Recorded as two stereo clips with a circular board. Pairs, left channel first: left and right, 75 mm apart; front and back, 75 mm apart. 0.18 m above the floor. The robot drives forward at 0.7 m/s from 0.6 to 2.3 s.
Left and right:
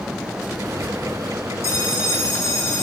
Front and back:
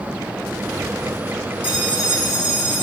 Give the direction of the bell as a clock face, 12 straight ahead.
8 o'clock.